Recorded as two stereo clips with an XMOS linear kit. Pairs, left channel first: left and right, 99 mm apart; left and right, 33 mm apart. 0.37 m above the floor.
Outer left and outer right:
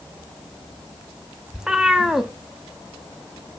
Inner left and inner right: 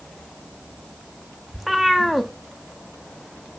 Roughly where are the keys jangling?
No keys jangling in this recording.